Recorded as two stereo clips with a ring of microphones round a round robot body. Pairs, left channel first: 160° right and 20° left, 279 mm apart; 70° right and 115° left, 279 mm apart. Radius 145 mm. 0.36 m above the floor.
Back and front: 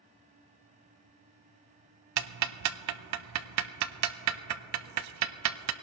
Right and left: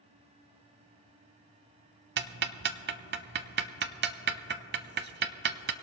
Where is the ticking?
55° left, 0.5 m.